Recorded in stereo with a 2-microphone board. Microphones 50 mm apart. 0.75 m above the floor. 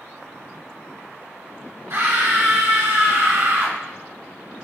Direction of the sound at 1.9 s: 55° right (ahead or behind).